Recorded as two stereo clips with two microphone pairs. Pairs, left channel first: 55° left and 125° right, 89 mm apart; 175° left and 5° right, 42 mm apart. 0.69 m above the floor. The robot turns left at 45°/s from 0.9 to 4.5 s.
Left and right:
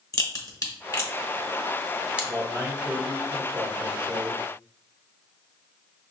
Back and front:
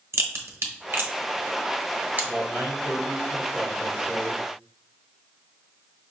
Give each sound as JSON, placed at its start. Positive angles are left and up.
{"t": 0.1, "sound": "a crack", "azimuth_deg": 10, "distance_m": 1.0}
{"t": 2.2, "sound": "a man speaking", "azimuth_deg": 20, "distance_m": 1.6}